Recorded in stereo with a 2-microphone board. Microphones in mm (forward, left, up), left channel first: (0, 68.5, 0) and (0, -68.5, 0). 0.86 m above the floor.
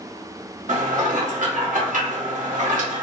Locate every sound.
0.7 s dishes clattering: 70° right (ahead or behind), 0.9 m